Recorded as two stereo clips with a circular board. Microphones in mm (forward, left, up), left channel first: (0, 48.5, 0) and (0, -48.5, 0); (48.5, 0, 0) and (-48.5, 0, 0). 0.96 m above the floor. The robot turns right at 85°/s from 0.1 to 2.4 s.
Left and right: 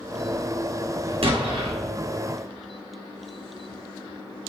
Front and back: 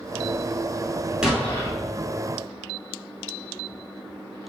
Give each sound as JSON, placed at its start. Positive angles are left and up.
{"t": 1.2, "sound": "an explosion", "azimuth_deg": -100, "distance_m": 2.0}